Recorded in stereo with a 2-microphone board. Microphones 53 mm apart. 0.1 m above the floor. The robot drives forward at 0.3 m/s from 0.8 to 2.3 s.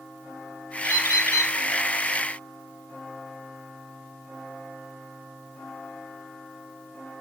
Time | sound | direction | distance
0.8 | a bird | 65° left (ahead or behind) | 0.7 m